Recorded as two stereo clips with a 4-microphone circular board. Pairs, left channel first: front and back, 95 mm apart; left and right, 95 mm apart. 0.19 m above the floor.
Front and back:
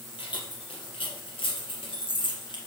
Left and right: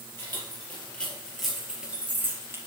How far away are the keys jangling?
About 4 m.